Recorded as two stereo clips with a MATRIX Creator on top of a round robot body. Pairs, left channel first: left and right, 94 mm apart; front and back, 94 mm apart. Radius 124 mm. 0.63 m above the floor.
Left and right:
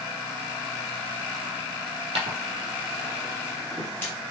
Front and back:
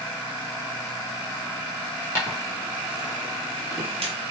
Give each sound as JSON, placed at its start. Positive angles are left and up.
{"t": 2.1, "sound": "footsteps", "azimuth_deg": -70, "distance_m": 1.3}